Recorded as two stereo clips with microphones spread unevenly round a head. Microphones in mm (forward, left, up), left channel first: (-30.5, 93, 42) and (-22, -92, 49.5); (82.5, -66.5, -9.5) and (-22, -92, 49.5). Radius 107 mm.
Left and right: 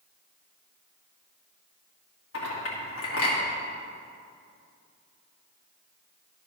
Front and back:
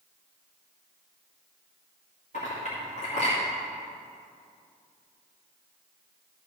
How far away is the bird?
No bird in this recording.